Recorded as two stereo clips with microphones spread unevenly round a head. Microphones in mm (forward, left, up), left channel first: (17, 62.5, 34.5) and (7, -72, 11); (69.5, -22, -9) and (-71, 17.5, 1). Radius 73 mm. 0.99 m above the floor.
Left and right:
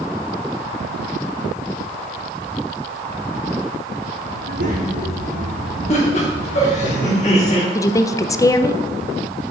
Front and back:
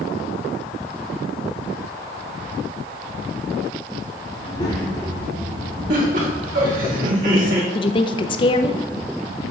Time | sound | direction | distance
4.3 | a child speaking | 75° right | 1.4 m
5.9 | laughter | 130° left | 2.5 m
7.8 | a woman speaking | 20° left | 0.5 m